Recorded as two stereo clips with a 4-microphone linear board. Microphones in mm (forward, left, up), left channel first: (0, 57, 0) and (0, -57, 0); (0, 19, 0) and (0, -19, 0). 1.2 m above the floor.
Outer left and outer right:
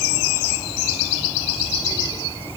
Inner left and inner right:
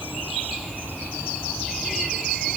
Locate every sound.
Only background noise.